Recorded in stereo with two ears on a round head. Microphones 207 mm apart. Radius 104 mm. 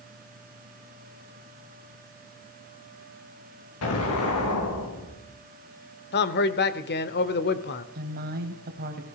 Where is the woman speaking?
45° right (ahead or behind), 3 m.